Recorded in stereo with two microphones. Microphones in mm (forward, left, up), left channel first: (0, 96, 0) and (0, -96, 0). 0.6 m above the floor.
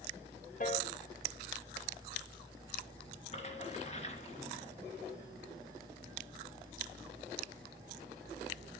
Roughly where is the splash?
Left.